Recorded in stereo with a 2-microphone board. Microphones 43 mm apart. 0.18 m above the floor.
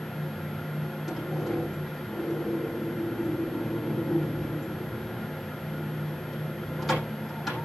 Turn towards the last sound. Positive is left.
turn(degrees=0)  # may be behind; listen again after turning